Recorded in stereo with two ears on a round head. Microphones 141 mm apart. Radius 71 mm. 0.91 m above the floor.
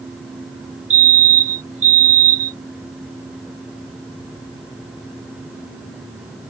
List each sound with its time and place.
0.9 s a fire alarm: 45° right (ahead or behind)